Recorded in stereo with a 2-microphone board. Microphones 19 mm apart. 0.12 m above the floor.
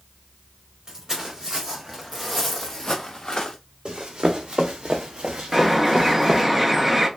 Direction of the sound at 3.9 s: 65° right (ahead or behind).